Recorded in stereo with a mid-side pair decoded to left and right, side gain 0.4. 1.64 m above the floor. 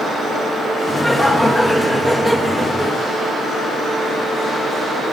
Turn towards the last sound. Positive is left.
turn(degrees=15)